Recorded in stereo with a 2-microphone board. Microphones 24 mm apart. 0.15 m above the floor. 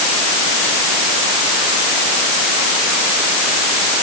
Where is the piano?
I don't hear a piano.